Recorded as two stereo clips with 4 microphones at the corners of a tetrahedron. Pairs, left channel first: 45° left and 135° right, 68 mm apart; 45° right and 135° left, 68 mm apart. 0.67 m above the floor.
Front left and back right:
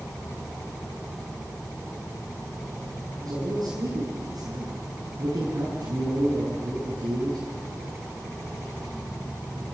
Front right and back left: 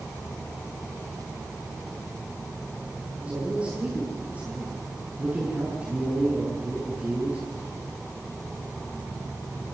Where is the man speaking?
155° right, 7 m.